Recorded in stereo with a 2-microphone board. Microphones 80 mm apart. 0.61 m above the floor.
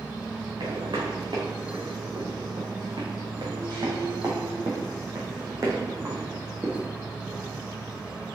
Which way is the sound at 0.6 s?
80° right.